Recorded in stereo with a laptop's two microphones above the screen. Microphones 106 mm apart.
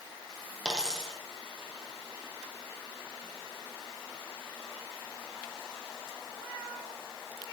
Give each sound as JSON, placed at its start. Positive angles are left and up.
{"t": 0.7, "sound": "a dropped coin", "side_deg": 5, "distance_m": 4.0}